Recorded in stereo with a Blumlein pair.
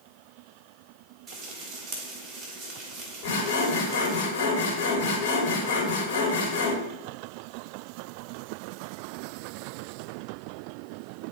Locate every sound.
1.3 s frying: 20° right, 2.5 m
3.2 s sawing: 45° left, 3 m